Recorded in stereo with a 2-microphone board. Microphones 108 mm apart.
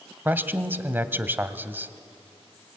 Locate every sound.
0.2 s a man speaking: 20° right (ahead or behind), 1.3 m